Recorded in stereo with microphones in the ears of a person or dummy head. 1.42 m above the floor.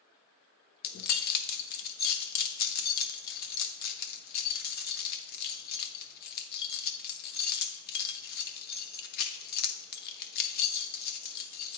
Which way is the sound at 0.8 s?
55° left (ahead or behind).